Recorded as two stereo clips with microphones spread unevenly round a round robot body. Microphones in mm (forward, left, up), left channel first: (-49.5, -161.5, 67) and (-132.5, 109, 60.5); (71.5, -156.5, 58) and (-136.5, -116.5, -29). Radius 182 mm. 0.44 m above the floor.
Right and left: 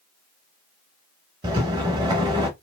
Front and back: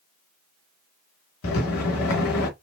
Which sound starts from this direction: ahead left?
A rattle, at 1.4 s.